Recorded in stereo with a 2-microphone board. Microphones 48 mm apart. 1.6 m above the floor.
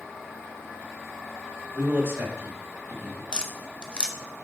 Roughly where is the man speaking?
Right.